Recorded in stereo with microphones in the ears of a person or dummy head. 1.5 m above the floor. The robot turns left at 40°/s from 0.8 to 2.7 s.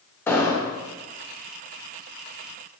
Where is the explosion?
15° left (ahead or behind), 1.1 m.